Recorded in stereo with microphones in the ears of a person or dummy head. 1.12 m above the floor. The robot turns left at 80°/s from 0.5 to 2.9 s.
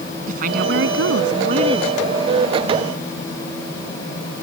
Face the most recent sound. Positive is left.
turn(degrees=120)